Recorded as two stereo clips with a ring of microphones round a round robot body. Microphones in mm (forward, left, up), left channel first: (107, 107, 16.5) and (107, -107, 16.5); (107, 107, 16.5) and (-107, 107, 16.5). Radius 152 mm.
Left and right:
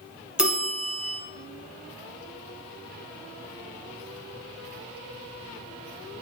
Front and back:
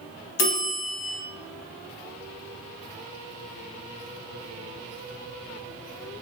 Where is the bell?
5° right, 0.8 m.